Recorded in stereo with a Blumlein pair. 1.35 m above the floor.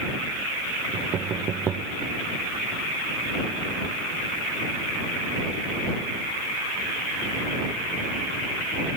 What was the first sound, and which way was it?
Knocking, 25° right.